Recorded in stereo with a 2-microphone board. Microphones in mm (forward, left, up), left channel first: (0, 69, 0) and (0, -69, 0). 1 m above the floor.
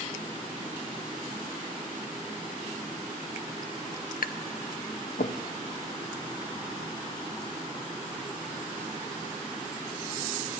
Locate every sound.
4.2 s tapping: 85° left, 0.5 m